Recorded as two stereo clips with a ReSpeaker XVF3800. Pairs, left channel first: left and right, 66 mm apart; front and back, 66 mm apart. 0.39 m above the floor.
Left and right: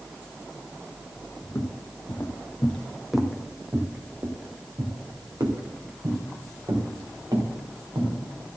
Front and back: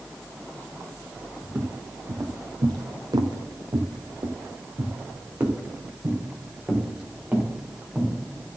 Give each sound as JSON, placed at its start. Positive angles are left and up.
{"t": 1.4, "sound": "footsteps", "azimuth_deg": 125, "distance_m": 1.9}